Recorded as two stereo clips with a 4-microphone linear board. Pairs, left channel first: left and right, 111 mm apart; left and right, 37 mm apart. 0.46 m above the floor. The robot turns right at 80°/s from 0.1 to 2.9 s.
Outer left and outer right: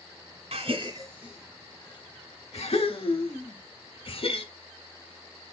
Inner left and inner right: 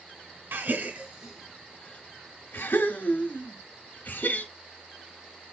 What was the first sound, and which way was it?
A gasp, 70° right (ahead or behind).